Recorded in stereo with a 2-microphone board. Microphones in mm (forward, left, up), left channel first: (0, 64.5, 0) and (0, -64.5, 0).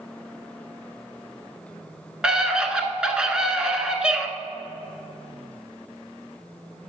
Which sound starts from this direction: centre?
A scream, at 2.2 s.